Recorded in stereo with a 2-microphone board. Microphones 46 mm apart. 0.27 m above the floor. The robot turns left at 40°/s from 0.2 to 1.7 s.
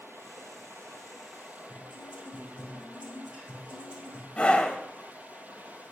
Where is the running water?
80° right, 0.9 m; by 5.9 s 140° right, 0.9 m.